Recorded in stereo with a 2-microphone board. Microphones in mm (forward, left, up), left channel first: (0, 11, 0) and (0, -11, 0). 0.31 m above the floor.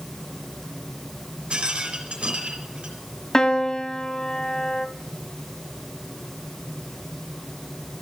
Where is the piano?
25° left (ahead or behind), 0.7 m.